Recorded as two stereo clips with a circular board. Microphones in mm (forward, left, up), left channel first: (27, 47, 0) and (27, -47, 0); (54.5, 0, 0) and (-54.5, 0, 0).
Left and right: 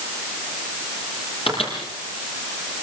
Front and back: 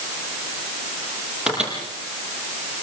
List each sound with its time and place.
1.5 s a microwave: 95° left, 7.5 m